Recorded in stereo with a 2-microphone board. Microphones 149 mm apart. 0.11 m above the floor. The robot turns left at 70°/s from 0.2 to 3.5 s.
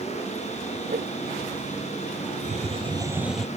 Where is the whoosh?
65° right (ahead or behind); by 1.1 s 80° right.